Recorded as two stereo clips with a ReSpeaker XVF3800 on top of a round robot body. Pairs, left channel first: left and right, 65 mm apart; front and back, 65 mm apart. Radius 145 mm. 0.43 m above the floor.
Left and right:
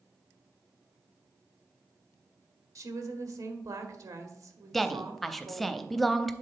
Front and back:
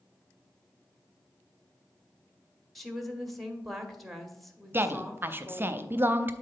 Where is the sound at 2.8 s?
90° right, 1.4 m.